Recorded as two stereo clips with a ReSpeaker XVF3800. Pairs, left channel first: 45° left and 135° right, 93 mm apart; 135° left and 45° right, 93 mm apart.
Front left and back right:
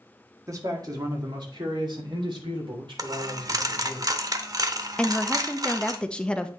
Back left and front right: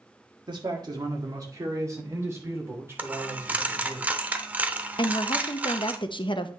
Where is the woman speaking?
125° left, 0.7 m.